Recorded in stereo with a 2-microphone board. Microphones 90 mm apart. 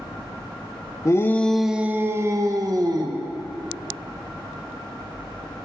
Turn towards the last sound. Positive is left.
turn(degrees=-50)  # may be behind; listen again after turning